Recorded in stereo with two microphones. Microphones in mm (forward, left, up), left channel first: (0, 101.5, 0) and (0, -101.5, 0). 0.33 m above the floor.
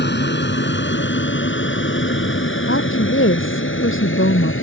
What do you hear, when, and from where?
0.0 s an aircraft: 60° left (ahead or behind); by 4.6 s 75° left (ahead or behind)
2.7 s a woman speaking: 80° left